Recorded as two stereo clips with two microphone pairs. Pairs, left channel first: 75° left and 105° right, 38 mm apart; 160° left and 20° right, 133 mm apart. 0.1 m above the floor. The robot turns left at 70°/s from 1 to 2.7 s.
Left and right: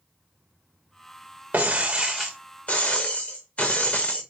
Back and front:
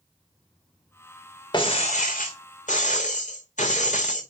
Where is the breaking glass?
145° right, 2.5 m; by 4.2 s 135° left, 2.5 m.